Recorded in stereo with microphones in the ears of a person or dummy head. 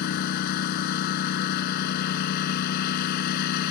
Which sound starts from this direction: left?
A lawn mower, at 0.0 s.